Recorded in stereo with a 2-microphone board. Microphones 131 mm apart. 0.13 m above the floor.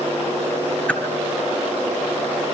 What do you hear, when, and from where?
0.9 s a whoosh: 10° left (ahead or behind), 2.0 m